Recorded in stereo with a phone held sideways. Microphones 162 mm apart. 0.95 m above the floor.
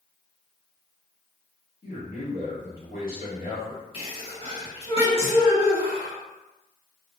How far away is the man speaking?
About 1.4 m.